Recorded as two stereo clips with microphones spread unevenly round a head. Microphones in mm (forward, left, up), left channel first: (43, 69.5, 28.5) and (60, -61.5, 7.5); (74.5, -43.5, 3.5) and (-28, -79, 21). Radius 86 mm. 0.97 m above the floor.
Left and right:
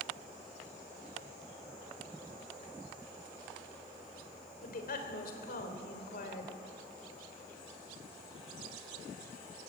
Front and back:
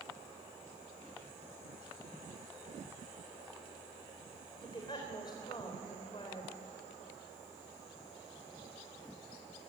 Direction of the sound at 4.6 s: 85° left.